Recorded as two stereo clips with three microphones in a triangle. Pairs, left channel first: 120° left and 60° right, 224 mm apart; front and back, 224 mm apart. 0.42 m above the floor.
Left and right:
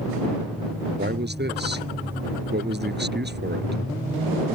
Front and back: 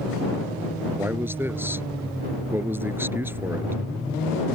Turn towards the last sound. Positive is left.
turn(degrees=-100)